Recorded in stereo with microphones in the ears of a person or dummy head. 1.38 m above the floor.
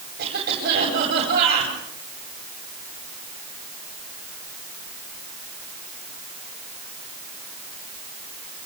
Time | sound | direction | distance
0.2 | a cough | 50° right (ahead or behind) | 9.5 m